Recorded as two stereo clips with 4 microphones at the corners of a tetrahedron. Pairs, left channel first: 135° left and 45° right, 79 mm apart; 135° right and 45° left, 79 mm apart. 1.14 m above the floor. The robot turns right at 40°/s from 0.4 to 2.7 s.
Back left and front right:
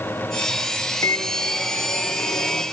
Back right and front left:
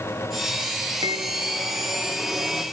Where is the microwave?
85° left, 2.5 m; by 2.6 s 150° left, 2.5 m.